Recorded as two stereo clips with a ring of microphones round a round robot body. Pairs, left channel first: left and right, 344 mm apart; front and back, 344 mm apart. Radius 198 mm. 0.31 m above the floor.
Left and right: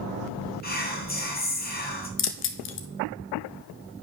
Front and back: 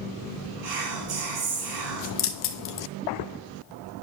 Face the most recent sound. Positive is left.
turn(degrees=45)